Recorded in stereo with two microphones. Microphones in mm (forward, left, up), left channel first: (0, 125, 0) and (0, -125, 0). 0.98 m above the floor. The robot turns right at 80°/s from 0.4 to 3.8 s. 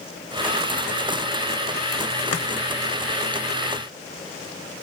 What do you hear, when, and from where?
2.3 s chopping: 70° left (ahead or behind), 0.8 m; by 2.5 s 80° left, 0.8 m